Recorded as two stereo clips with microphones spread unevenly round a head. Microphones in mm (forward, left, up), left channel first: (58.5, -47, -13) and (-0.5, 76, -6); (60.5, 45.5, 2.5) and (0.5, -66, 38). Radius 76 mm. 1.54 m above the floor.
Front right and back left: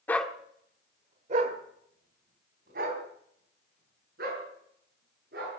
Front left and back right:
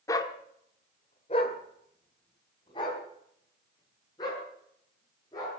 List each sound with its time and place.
0.1 s a dog barking: 10° right, 1.1 m; by 5.6 s 130° left, 7.5 m